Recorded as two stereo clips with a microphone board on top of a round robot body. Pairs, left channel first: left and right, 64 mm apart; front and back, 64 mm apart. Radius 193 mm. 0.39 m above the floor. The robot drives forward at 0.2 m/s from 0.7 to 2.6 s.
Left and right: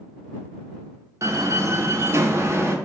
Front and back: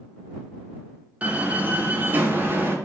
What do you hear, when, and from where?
1.2 s a door slam: 115° right, 1.1 m; by 2.8 s 130° right, 1.2 m